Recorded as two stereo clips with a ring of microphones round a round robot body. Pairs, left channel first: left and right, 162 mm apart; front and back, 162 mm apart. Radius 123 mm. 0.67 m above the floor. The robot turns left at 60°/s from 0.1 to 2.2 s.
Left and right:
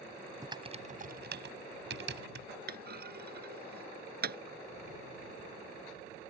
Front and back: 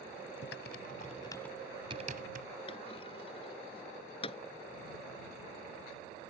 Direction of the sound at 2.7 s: 70° right.